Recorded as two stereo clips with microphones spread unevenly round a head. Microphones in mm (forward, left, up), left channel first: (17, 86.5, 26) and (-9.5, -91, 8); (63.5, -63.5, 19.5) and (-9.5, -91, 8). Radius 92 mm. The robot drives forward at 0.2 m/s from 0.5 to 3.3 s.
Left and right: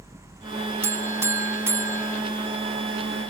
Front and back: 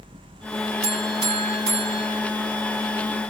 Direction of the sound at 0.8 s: Straight behind.